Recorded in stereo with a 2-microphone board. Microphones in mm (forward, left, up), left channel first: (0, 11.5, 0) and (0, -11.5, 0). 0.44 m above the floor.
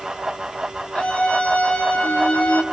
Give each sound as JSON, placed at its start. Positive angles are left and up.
{"t": 0.9, "sound": "a scream", "side_deg": 60, "distance_m": 8.5}